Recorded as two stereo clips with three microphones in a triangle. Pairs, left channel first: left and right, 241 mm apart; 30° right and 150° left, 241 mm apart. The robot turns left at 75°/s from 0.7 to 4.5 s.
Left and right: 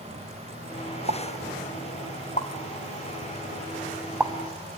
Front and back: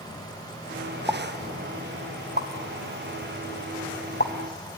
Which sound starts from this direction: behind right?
A pop, at 1.1 s.